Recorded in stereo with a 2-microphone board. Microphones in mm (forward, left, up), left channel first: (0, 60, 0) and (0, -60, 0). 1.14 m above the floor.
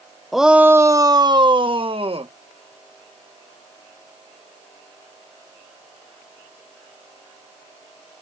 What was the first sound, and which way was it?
A shout, centre (ahead or behind).